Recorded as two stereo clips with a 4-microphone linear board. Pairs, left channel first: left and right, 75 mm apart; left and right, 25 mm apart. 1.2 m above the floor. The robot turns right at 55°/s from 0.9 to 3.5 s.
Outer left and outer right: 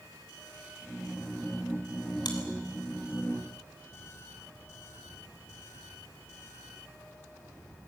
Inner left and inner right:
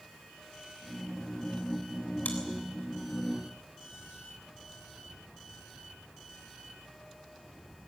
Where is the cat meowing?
I don't hear a cat meowing.